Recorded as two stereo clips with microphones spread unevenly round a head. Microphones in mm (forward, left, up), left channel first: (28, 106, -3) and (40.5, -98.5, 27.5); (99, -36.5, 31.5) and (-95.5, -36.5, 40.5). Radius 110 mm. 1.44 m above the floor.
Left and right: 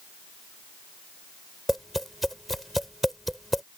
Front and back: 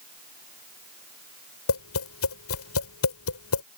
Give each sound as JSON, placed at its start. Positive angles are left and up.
{"t": 1.7, "sound": "tapping", "azimuth_deg": 5}